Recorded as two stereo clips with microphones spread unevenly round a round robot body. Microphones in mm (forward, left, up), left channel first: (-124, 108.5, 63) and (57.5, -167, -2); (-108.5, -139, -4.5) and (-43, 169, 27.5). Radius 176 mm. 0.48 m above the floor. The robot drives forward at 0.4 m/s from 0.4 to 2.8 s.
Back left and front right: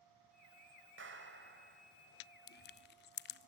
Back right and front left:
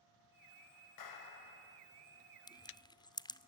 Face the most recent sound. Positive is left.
turn(degrees=-175)